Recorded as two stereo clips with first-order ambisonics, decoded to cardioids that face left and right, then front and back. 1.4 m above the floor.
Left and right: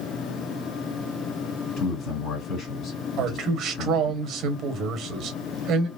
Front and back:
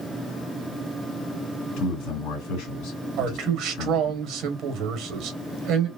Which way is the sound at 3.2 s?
135° right.